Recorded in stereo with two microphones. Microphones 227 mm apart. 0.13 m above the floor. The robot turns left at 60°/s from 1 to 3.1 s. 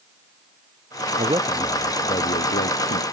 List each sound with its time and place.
1.2 s a man speaking: 150° right; by 3.0 s 100° left